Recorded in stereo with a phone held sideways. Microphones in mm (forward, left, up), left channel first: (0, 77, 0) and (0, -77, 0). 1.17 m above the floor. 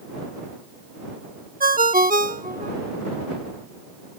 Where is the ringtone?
65° right (ahead or behind).